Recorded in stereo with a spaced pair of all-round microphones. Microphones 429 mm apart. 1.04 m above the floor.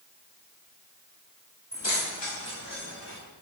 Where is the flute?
No flute in this recording.